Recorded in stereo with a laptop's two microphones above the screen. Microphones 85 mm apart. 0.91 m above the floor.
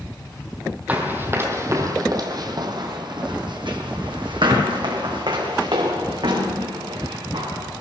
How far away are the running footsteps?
About 1.8 m.